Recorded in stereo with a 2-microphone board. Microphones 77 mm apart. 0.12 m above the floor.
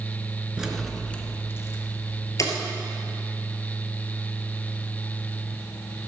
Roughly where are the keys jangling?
Centre.